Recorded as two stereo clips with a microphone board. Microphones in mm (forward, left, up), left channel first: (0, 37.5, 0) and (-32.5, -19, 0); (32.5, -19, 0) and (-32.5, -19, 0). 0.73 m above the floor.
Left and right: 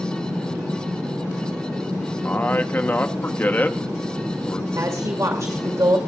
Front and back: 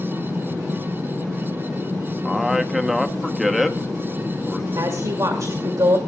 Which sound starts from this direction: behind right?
A woman speaking, at 4.8 s.